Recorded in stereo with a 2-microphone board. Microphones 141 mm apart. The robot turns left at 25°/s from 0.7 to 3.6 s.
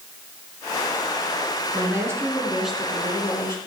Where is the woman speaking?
155° right, 3.5 m; by 3.6 s 160° left, 3.5 m.